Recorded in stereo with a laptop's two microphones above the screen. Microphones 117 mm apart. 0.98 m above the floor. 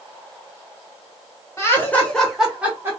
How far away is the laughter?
About 1.0 m.